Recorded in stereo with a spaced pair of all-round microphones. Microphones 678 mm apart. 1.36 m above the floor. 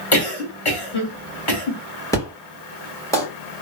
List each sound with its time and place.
0.1 s a cough: 45° left (ahead or behind), 1.1 m
2.1 s an explosion: 5° left (ahead or behind), 1.4 m